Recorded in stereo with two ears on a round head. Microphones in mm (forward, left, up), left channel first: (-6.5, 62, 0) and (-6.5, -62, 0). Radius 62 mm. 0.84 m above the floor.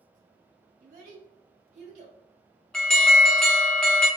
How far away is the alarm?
About 0.6 m.